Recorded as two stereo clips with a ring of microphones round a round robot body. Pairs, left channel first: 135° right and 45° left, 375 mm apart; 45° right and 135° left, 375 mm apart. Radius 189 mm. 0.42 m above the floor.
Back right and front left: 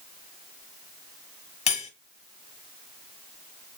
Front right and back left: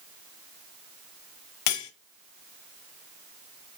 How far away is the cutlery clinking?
About 1.3 m.